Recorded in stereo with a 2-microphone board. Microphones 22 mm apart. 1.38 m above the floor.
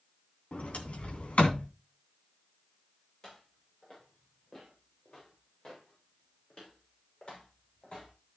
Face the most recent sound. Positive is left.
turn(degrees=50)  # may be behind; listen again after turning